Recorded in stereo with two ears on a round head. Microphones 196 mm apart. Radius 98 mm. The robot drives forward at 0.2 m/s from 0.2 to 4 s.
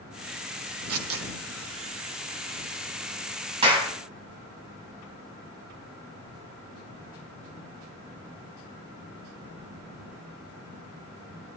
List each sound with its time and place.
0.9 s tearing paper: 70° right (ahead or behind), 1.9 m
3.6 s a clap: 25° right (ahead or behind), 2.5 m